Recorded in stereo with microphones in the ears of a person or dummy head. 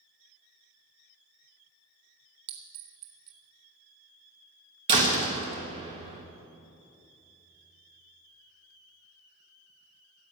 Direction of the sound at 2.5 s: 55° right (ahead or behind).